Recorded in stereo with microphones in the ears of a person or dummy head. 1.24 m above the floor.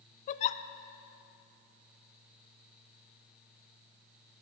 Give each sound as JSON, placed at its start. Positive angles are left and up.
{"t": 0.3, "sound": "a giggle", "side_deg": 40, "distance_m": 0.6}